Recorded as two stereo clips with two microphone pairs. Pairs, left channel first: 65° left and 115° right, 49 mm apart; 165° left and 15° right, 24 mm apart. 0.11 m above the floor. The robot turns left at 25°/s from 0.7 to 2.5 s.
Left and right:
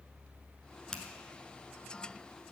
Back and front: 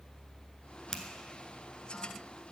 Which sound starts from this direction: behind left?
A finger snap, at 0.9 s.